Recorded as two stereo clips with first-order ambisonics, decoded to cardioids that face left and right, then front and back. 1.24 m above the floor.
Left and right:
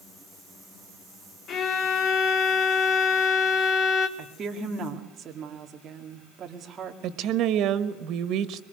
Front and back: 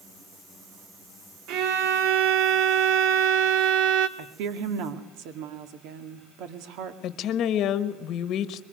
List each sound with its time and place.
1.5 s a violin: 145° left, 2 m
4.2 s a woman speaking: 155° right, 2 m
7.0 s a woman speaking: 45° right, 1.3 m